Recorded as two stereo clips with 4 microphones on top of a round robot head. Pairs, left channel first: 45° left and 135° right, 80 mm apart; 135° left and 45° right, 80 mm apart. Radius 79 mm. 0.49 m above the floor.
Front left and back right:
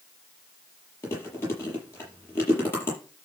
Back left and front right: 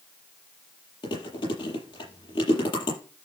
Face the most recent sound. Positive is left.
turn(degrees=110)